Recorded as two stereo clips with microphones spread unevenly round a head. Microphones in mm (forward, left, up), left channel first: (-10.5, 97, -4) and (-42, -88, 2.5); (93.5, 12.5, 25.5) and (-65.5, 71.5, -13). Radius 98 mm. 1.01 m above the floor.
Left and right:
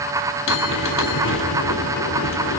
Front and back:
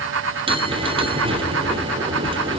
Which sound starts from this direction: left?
A bell, at 0.5 s.